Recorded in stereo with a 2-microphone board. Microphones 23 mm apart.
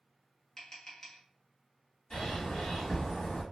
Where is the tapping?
20° left (ahead or behind), 1.0 m.